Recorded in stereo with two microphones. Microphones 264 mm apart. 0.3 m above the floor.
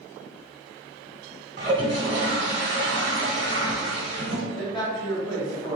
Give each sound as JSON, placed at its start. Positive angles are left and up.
{"t": 1.6, "sound": "a toilet flushing", "side_deg": -40, "distance_m": 0.8}
{"t": 4.5, "sound": "a man speaking", "side_deg": 15, "distance_m": 1.4}